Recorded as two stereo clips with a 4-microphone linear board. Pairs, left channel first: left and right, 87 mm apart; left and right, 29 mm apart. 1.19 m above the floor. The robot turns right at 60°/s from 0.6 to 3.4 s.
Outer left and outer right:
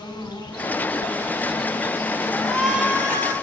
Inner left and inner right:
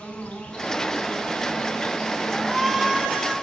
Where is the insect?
55° left, 8 m; by 3.4 s 140° right, 8 m.